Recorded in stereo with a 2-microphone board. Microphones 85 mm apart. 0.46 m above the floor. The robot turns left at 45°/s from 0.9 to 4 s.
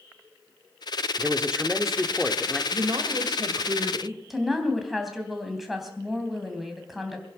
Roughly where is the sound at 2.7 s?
Right.